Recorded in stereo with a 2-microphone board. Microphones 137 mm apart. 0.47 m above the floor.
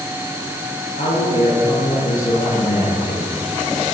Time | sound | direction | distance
1.0 | a man speaking | 80° left | 9 m